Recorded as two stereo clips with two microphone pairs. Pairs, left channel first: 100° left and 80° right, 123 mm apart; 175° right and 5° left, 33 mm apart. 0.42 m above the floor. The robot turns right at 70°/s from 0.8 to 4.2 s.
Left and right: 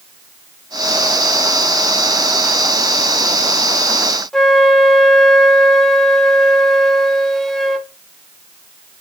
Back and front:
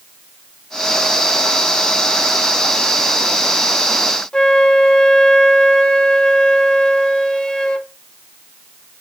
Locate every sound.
4.3 s a flute: 175° left, 0.6 m